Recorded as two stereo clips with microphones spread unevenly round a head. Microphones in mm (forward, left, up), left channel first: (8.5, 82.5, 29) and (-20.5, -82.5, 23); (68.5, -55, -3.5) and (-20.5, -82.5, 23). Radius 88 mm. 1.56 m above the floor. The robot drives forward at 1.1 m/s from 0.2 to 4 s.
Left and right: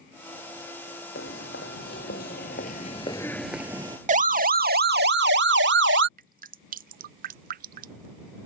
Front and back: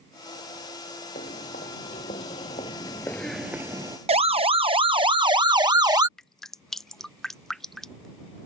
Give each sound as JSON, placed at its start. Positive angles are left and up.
{"t": 1.1, "sound": "footsteps", "azimuth_deg": 50}
{"t": 4.1, "sound": "a siren", "azimuth_deg": -145}
{"t": 6.2, "sound": "dripping", "azimuth_deg": -65}